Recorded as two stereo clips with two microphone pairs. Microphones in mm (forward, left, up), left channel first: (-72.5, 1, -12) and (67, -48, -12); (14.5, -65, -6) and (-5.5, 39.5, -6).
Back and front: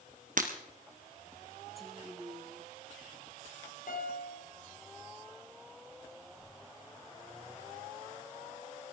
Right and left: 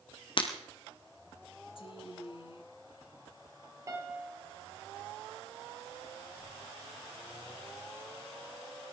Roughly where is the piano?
Behind.